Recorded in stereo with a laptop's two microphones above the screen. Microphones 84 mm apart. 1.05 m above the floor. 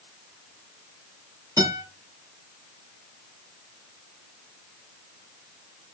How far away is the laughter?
I don't hear laughter.